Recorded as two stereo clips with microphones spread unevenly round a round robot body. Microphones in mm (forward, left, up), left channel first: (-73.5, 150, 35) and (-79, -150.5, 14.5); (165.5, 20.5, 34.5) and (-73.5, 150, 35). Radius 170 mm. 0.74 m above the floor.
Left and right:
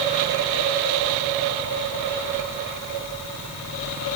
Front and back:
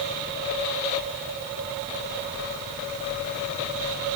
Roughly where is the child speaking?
No child speaking in this recording.